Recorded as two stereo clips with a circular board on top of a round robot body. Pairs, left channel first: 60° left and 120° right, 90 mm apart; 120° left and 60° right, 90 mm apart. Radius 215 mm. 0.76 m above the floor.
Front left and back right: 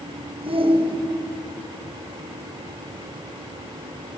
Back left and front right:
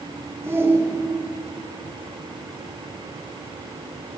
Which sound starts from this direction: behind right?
A shout, at 0.4 s.